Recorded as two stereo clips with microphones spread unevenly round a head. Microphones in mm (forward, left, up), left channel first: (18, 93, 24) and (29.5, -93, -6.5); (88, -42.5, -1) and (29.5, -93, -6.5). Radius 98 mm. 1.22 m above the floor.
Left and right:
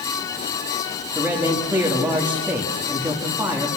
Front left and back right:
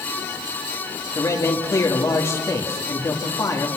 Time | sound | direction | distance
1.1 | a man speaking | 5° right | 2.5 m